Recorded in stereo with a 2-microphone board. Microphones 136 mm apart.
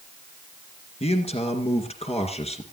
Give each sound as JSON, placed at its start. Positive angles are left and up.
{"t": 1.0, "sound": "a man speaking", "side_deg": 50, "distance_m": 2.5}